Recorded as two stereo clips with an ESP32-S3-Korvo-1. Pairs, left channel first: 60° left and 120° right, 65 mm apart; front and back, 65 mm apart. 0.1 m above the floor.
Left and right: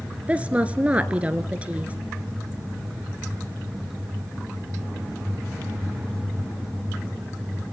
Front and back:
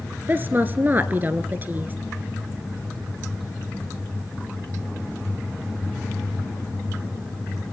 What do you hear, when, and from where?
0.3 s a woman speaking: 170° right, 1.2 m